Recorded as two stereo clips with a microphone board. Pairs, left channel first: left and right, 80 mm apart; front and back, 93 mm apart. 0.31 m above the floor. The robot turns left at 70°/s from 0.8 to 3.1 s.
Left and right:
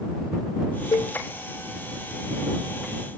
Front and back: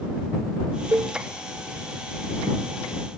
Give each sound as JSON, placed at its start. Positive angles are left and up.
{"t": 0.9, "sound": "a cowbell", "azimuth_deg": 130}